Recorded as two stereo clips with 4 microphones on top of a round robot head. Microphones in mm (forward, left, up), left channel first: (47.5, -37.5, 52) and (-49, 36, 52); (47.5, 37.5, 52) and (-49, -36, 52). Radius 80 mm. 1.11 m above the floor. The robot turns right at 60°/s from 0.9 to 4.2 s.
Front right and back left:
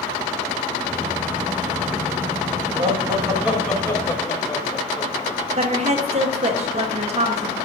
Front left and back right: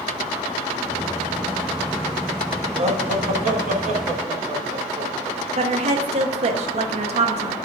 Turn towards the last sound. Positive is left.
turn(degrees=180)